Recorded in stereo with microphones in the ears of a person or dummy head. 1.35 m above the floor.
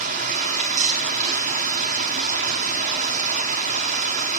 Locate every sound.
0.0 s running water: 35° right (ahead or behind), 0.7 m